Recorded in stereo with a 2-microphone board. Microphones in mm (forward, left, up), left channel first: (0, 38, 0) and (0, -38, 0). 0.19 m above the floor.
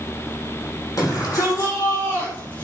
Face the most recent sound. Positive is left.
turn(degrees=25)  # may be behind; listen again after turning